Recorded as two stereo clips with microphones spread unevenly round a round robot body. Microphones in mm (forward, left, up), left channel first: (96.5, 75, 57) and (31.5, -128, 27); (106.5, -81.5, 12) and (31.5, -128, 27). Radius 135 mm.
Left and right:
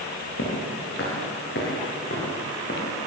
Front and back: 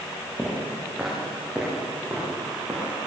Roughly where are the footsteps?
Behind left.